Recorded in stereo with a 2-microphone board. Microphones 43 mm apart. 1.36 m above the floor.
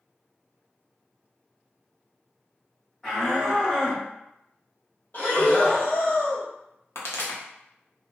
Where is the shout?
15° left (ahead or behind), 1.2 m; by 4.0 s 15° right (ahead or behind), 1.0 m.